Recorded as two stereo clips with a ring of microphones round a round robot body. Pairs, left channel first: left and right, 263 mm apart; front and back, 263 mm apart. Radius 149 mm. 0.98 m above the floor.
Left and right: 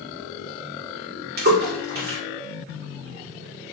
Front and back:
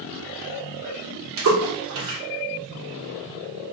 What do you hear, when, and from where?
1.4 s a splash: 145° right, 1.6 m